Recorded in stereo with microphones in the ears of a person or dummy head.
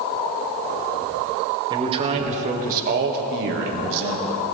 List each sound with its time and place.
1.7 s a man speaking: 25° right (ahead or behind), 2.5 m; by 4.5 s 80° right, 2.5 m